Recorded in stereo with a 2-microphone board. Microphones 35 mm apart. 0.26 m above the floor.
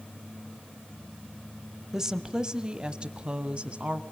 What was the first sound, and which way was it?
A woman speaking, 15° right (ahead or behind).